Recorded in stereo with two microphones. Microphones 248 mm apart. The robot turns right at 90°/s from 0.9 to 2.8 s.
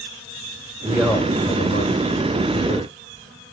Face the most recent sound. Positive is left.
turn(degrees=160)